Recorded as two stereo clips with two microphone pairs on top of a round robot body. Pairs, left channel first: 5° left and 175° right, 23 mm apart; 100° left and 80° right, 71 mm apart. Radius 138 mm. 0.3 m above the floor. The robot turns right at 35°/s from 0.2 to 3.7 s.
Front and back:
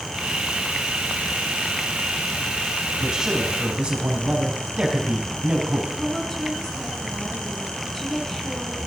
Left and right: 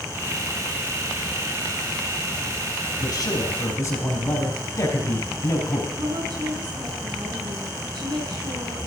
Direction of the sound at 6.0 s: 70° right.